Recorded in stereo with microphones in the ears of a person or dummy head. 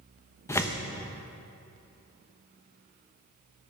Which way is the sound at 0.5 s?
15° left (ahead or behind).